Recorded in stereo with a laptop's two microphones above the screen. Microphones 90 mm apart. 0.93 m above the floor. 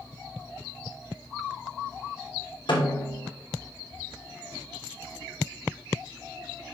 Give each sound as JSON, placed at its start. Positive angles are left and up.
{"t": 2.7, "sound": "a snare drum", "side_deg": 70, "distance_m": 3.0}